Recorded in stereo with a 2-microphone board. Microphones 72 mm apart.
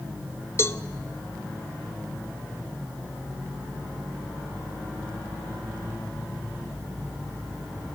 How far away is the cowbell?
About 0.7 m.